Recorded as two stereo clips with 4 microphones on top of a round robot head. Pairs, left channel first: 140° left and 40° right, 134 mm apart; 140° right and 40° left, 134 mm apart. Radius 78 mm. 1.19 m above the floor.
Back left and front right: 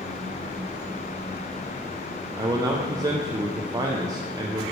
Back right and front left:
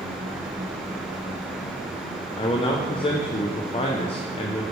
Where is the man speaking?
100° right, 0.6 m.